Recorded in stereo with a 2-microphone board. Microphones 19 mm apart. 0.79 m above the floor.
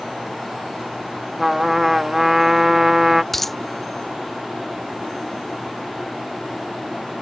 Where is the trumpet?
10° right (ahead or behind).